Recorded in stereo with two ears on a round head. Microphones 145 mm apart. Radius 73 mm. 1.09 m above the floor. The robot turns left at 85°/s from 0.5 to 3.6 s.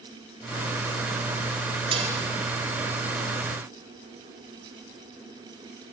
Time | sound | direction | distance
1.9 | dishes clattering | 30° right (ahead or behind) | 3 m